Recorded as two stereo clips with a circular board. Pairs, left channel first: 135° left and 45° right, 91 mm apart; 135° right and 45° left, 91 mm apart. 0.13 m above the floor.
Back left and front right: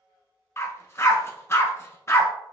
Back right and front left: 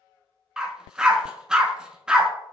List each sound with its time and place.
0.6 s a dog barking: 120° left, 0.5 m